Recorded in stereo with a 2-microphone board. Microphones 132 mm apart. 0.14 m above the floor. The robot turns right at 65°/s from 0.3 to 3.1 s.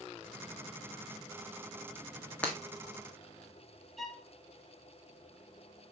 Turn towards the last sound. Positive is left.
turn(degrees=0)  # may be behind; listen again after turning